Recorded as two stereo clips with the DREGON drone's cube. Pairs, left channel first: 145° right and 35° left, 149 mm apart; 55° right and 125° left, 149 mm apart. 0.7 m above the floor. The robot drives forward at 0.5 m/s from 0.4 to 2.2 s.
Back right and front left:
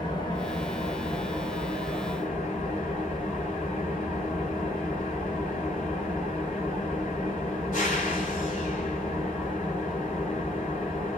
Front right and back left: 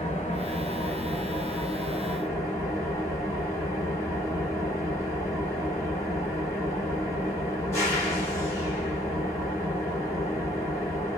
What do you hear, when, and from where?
0.0 s an engine running: 85° right, 1.3 m; by 11.2 s 125° right, 1.6 m